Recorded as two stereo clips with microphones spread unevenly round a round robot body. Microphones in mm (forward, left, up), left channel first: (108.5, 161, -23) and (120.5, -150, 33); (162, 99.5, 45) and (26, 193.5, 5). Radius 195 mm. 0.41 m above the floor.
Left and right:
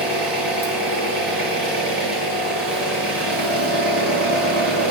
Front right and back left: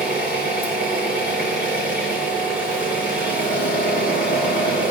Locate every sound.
0.0 s an engine running: 45° right, 6 m